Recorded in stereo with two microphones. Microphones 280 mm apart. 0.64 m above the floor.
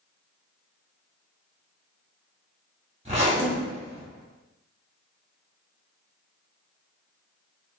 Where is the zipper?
25° right (ahead or behind), 1.5 m.